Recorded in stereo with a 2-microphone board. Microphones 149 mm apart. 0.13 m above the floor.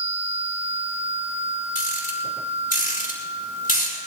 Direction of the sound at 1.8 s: 70° left (ahead or behind).